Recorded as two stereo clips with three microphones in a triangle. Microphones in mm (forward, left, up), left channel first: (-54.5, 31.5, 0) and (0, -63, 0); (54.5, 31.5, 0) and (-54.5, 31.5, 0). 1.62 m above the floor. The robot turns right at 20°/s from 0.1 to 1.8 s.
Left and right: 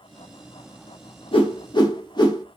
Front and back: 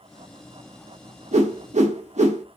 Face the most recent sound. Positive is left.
turn(degrees=175)